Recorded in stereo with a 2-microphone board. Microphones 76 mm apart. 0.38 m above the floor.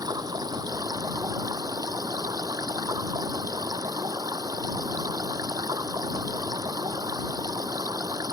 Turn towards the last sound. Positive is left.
turn(degrees=-55)  # may be behind; listen again after turning